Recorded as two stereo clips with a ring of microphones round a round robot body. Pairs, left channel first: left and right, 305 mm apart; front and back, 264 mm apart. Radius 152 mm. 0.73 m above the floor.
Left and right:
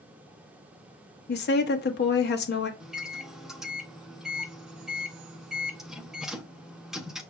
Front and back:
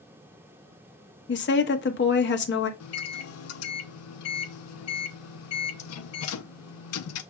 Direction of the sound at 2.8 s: Straight ahead.